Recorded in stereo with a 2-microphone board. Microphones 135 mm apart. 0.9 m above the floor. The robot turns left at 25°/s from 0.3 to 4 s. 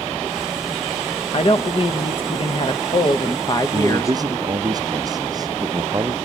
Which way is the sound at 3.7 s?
35° right (ahead or behind).